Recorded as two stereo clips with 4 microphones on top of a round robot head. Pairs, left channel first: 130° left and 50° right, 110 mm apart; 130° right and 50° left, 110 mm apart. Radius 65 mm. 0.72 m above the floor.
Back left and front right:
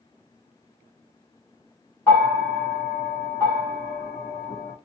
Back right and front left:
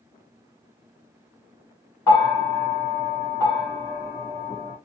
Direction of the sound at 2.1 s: 175° right.